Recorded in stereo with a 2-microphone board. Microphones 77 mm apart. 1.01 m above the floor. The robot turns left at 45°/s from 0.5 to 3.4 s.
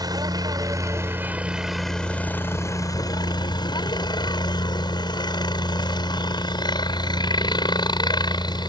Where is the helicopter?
120° right; by 8.7 s 110° left.